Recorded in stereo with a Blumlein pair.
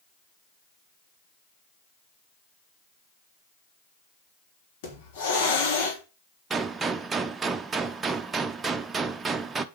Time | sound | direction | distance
4.8 | a hiss | 50° left | 3.5 m
6.5 | a gunshot | 15° right | 1.0 m